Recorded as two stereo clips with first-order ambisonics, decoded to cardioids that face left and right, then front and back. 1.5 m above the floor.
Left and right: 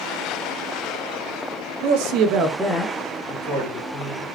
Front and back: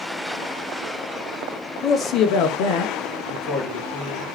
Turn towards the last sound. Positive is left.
turn(degrees=40)